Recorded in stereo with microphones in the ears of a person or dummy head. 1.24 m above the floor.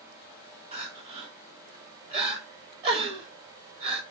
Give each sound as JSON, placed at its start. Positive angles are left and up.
{"t": 0.7, "sound": "crying", "side_deg": -30, "distance_m": 0.8}